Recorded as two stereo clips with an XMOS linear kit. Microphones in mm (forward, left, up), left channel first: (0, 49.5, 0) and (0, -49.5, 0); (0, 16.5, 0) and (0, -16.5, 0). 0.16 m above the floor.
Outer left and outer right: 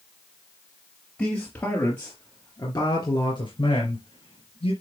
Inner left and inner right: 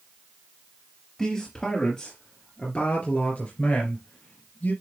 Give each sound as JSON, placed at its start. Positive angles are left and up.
{"t": 1.2, "sound": "a man speaking", "side_deg": 15, "distance_m": 3.0}